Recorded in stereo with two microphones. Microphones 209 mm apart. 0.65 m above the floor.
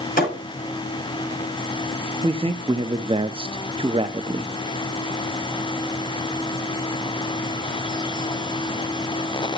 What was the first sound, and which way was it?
A thud, 40° left (ahead or behind).